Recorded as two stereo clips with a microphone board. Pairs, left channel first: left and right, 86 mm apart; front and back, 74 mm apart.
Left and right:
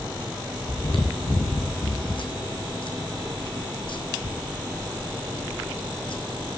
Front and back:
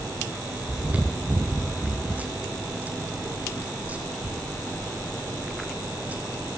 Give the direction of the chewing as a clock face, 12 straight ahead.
8 o'clock.